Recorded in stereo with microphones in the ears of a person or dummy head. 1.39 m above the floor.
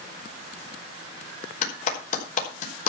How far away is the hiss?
I don't hear a hiss.